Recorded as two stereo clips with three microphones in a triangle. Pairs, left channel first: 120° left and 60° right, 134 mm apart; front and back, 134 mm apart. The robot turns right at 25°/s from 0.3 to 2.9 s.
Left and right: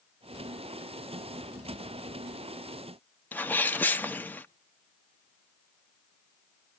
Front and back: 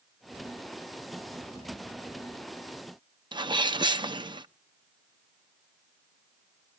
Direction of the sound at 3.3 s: 170° right.